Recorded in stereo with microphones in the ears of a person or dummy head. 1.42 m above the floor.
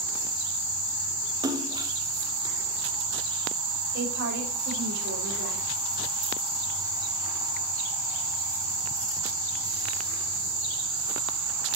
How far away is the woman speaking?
About 5 m.